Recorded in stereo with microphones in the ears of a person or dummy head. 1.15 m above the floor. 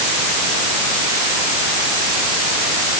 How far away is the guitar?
No guitar in this recording.